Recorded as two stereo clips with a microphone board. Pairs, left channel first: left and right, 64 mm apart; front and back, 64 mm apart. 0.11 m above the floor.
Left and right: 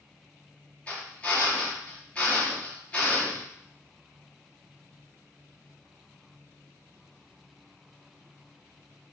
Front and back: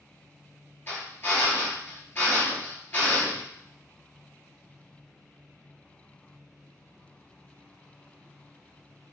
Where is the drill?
30° left, 2 m.